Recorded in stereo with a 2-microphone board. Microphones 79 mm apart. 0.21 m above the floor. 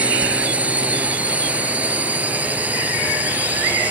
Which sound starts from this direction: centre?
A drone, at 0.0 s.